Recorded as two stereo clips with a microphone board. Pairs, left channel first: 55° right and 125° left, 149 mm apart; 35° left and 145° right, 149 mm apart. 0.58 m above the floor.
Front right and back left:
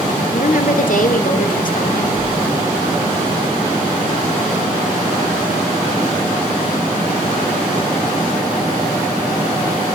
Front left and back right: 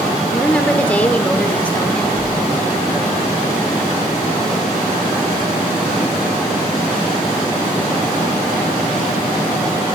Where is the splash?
95° left, 4.5 m.